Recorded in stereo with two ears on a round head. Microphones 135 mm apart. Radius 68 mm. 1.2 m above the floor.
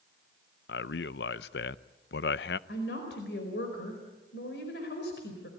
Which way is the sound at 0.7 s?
80° left.